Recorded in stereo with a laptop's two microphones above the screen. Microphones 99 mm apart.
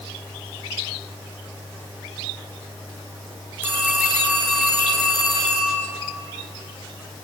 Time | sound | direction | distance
3.6 | a phone ringing | 20° right (ahead or behind) | 7.5 m